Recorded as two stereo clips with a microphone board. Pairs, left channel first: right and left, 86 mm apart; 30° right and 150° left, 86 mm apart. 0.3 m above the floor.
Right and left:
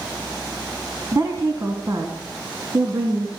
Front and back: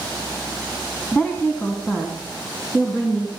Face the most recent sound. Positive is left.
turn(degrees=30)